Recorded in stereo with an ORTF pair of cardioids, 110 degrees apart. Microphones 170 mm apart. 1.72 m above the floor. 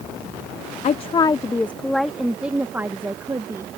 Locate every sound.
0.8 s a woman speaking: 45° left; by 3.8 s 20° right